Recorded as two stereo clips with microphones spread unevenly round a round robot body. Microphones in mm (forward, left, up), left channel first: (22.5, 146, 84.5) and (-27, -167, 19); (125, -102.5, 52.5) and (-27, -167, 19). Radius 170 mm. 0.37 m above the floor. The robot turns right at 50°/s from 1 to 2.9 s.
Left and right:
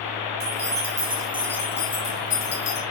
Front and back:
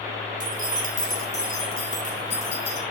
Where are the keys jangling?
45° right, 3 m; by 2.8 s 45° left, 3 m.